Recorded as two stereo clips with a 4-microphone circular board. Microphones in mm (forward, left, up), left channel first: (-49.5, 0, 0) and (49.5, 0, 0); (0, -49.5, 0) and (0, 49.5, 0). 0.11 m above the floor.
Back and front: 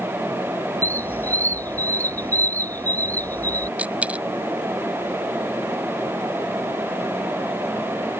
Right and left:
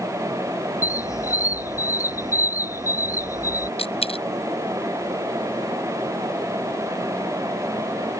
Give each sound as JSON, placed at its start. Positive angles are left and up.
{"t": 0.8, "sound": "a squeak", "azimuth_deg": -120}
{"t": 3.8, "sound": "a dropped coin", "azimuth_deg": -75}